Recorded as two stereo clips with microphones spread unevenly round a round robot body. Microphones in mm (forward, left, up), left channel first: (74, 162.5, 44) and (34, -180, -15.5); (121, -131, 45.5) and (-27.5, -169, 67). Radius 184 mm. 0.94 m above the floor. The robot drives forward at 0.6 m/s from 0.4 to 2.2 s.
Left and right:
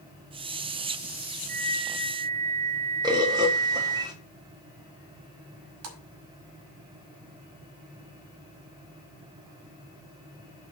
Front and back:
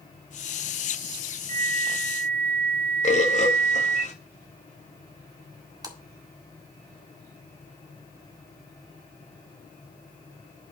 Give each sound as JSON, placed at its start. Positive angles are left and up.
{"t": 1.5, "sound": "a flute", "azimuth_deg": -135, "distance_m": 0.6}
{"t": 3.0, "sound": "a bird", "azimuth_deg": -20, "distance_m": 1.7}
{"t": 5.8, "sound": "a splash", "azimuth_deg": -100, "distance_m": 2.0}